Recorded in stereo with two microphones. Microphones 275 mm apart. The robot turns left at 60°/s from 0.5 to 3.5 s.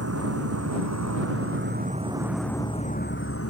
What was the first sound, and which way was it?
An insect, 65° right.